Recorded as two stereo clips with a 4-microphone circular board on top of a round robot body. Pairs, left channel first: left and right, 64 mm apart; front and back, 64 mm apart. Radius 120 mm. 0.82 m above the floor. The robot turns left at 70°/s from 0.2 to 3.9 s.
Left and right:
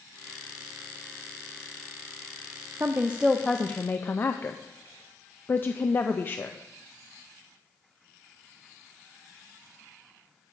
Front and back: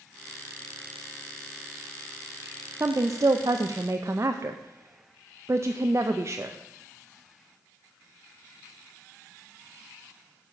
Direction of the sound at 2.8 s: 140° right.